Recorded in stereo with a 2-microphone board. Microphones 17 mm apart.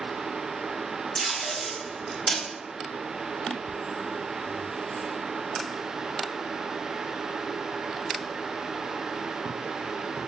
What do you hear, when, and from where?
1.1 s tape being pulled: 40° left (ahead or behind), 1.3 m